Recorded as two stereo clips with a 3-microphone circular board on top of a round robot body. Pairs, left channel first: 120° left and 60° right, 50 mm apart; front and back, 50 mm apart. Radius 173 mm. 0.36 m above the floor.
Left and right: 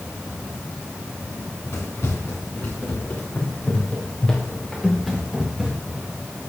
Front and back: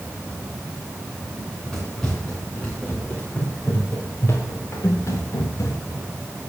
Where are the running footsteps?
85° left, 3.5 m; by 6.0 s 15° left, 2.5 m.